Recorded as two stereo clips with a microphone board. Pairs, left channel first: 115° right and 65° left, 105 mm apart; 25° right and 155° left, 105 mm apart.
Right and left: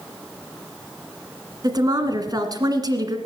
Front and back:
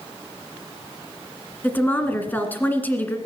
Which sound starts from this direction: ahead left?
A woman speaking, at 1.6 s.